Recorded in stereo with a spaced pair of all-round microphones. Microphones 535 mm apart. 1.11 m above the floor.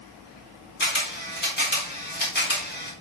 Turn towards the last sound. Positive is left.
turn(degrees=20)  # may be behind; listen again after turning